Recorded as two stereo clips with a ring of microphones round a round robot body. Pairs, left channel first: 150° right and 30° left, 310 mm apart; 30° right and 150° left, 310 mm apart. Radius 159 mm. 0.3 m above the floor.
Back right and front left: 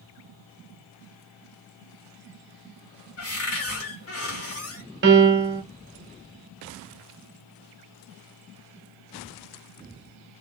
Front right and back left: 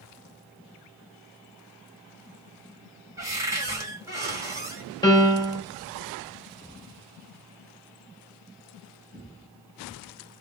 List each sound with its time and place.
3.2 s a cupboard door: 135° right, 2.0 m
5.0 s a piano: 40° left, 1.6 m